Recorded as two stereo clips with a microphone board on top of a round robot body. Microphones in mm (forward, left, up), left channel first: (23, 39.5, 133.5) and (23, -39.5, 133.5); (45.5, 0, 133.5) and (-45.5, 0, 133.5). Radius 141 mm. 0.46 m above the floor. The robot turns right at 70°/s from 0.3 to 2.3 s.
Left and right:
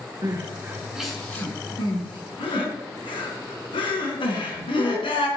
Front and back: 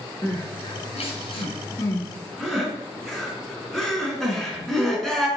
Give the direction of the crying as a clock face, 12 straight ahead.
2 o'clock.